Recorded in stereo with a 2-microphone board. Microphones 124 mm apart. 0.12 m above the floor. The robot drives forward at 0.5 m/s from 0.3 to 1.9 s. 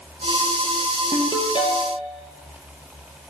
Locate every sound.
1.1 s a ringtone: 35° left (ahead or behind), 1.6 m; by 2.1 s 45° left (ahead or behind), 1.3 m